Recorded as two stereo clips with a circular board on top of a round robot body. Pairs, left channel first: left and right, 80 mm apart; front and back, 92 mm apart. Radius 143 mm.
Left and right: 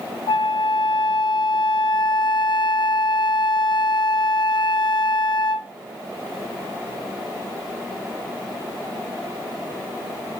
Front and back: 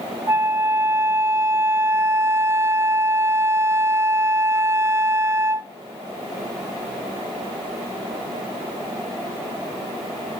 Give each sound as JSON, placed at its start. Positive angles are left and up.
{"t": 0.3, "sound": "a flute", "azimuth_deg": 115, "distance_m": 0.6}